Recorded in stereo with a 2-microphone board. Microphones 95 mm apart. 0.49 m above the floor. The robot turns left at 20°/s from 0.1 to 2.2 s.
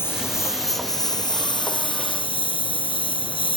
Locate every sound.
0.0 s a lawn mower: 155° left; by 3.6 s 115° left